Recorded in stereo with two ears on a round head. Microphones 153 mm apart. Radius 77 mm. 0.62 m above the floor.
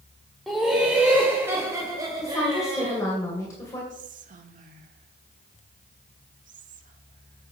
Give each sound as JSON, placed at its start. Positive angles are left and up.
{"t": 0.5, "sound": "laughter", "side_deg": 0, "distance_m": 1.6}
{"t": 2.2, "sound": "a woman speaking", "side_deg": 20, "distance_m": 2.5}
{"t": 3.9, "sound": "whispering", "side_deg": -50, "distance_m": 1.3}